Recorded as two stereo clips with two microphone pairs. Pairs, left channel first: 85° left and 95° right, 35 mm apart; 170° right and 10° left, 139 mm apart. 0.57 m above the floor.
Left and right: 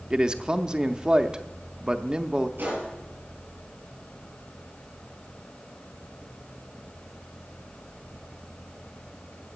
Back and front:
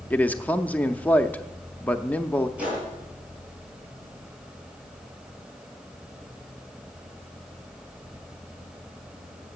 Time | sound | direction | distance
0.1 | a man speaking | 110° right | 0.6 m
2.6 | a gunshot | 70° right | 6.5 m